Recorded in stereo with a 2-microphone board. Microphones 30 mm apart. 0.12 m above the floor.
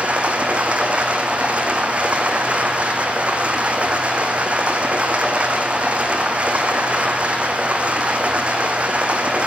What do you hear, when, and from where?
0.0 s running water: 40° right (ahead or behind), 1.4 m